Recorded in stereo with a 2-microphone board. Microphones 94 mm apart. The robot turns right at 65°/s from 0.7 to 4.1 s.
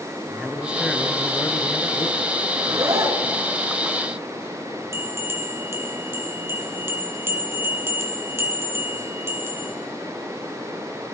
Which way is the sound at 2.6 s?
115° right.